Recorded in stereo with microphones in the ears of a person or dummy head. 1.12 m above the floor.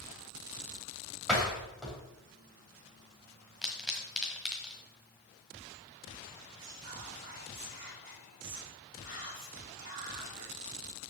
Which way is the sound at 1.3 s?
Centre (ahead or behind).